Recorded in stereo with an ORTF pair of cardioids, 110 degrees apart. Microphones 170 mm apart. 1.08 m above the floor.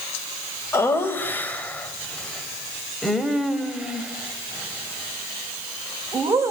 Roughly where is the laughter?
Ahead.